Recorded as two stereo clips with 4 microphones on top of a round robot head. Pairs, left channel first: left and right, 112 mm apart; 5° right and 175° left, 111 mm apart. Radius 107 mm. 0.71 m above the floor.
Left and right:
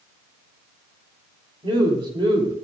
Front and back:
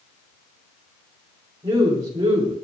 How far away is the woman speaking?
About 3 m.